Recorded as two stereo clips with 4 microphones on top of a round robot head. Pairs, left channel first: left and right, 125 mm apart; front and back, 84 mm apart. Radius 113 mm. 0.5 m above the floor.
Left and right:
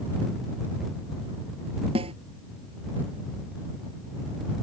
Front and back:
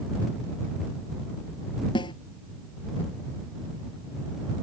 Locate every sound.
1.9 s a snare drum: 40° right